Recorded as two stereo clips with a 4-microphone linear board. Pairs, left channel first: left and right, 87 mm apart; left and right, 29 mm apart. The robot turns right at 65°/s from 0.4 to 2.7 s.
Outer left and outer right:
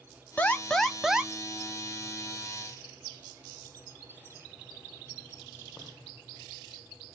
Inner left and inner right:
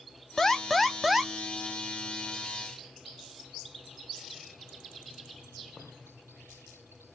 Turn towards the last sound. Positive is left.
turn(degrees=-65)